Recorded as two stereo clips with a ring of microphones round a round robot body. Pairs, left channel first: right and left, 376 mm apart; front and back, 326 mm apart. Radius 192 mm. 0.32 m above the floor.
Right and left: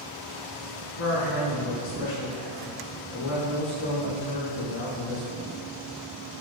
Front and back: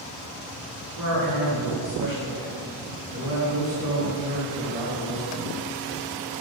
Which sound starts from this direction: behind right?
A man speaking, at 1.0 s.